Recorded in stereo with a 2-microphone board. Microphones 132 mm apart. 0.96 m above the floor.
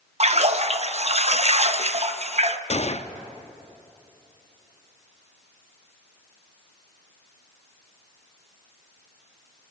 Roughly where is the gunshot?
Left.